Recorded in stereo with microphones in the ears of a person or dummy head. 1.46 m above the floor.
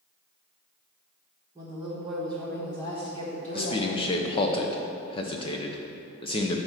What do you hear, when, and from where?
1.6 s a woman speaking: 15° right (ahead or behind), 1.2 m; by 4.5 s 55° left (ahead or behind), 2 m
3.5 s a man speaking: 30° left (ahead or behind), 0.6 m